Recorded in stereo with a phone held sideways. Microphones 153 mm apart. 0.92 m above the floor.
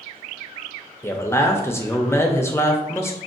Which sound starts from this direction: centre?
A man speaking, at 1.0 s.